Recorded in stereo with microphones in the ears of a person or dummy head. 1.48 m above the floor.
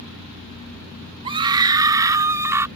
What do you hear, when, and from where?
1.2 s a scream: 25° right (ahead or behind); by 2.7 s 10° right (ahead or behind)